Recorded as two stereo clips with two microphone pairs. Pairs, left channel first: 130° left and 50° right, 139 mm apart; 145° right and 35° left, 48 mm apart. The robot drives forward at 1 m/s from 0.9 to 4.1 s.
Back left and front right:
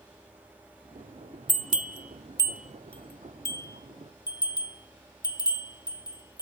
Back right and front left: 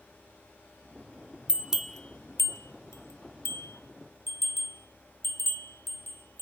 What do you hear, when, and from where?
1.5 s a bell: 30° right, 0.8 m; by 6.4 s 165° right, 2.0 m